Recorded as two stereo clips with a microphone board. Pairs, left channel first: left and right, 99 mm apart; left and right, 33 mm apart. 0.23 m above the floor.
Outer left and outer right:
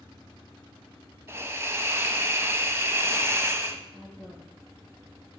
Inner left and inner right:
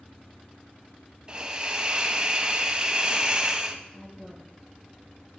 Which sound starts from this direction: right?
A hiss, at 1.3 s.